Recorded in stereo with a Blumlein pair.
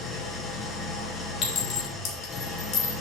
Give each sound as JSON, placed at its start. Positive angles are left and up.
{"t": 0.0, "sound": "an engine running", "azimuth_deg": 15, "distance_m": 0.8}
{"t": 1.4, "sound": "a clink", "azimuth_deg": 30, "distance_m": 1.5}